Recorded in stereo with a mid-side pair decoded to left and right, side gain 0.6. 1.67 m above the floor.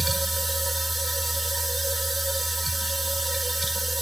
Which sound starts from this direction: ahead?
A machine running, at 0.0 s.